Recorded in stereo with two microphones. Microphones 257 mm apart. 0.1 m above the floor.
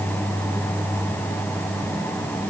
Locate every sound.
Only background noise.